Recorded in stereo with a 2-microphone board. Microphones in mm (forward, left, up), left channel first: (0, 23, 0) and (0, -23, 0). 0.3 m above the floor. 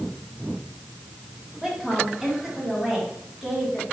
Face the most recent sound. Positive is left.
turn(degrees=-10)  # may be behind; listen again after turning